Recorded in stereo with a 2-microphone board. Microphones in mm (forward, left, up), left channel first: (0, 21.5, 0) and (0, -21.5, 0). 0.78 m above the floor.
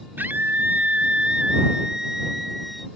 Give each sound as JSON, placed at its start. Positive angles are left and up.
{"t": 0.2, "sound": "a scream", "side_deg": -55}